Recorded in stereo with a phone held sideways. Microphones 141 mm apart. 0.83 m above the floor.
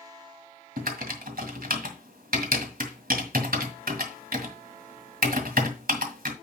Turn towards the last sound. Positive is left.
turn(degrees=-80)